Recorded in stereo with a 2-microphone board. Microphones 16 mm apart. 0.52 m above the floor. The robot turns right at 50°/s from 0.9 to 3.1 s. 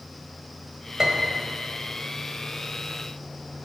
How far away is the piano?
About 1.3 m.